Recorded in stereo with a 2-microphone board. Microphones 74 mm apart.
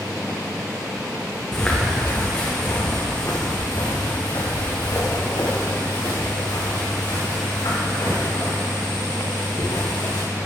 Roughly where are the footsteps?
Centre.